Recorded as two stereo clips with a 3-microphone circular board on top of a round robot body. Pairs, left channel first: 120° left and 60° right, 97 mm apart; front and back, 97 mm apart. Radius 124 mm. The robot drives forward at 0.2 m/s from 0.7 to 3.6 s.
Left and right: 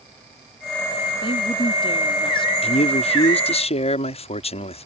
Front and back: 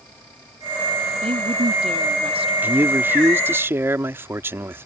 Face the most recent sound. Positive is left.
turn(degrees=110)